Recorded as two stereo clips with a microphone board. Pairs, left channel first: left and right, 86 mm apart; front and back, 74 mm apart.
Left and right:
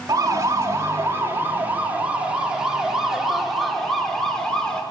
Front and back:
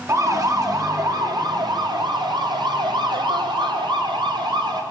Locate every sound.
0.1 s a siren: 135° right, 5 m; by 4.8 s 170° left, 7 m